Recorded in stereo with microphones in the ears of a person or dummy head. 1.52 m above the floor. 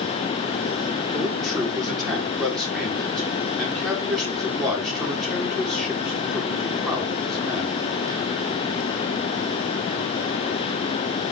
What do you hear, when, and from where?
1.1 s a man speaking: centre (ahead or behind), 5 m